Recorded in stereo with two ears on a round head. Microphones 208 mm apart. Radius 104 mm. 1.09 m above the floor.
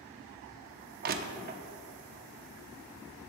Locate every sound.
1.0 s crushing: 40° right (ahead or behind), 0.7 m